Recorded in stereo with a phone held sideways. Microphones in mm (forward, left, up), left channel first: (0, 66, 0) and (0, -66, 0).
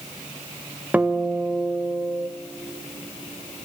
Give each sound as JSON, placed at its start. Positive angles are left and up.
{"t": 0.9, "sound": "a guitar", "side_deg": -10, "distance_m": 0.8}